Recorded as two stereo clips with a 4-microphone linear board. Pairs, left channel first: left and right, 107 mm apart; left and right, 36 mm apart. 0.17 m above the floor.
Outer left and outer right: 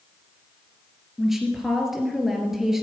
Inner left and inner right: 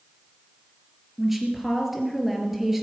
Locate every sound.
1.2 s a woman speaking: 5° right (ahead or behind), 3 m